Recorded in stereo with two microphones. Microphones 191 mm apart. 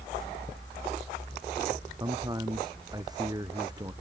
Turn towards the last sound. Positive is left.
turn(degrees=-20)  # may be behind; listen again after turning